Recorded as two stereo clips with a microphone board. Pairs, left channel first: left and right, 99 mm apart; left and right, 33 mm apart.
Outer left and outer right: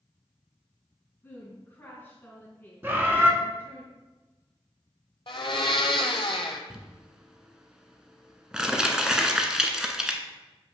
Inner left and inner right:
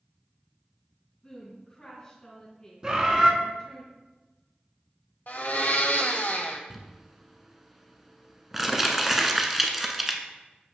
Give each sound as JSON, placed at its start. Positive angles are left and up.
{"t": 1.2, "sound": "a woman speaking", "side_deg": 20, "distance_m": 1.7}
{"t": 2.8, "sound": "a bird", "side_deg": -20, "distance_m": 0.6}
{"t": 5.3, "sound": "a blender", "side_deg": 60, "distance_m": 0.7}
{"t": 6.7, "sound": "crumpling", "side_deg": -5, "distance_m": 0.5}